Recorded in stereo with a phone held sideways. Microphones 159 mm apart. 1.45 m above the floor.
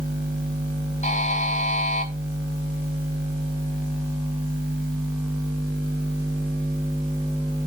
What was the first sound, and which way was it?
A buzzer, 45° left (ahead or behind).